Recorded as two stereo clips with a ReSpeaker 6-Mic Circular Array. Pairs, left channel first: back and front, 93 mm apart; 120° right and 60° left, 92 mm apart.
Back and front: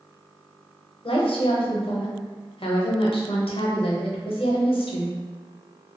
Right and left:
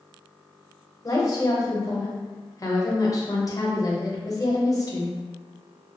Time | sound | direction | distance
1.0 | a woman speaking | 170° right | 0.7 m